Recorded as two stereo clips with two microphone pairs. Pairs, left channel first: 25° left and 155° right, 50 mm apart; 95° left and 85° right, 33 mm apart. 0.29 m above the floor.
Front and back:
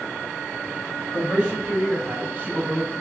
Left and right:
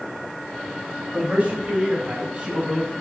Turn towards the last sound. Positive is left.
turn(degrees=-145)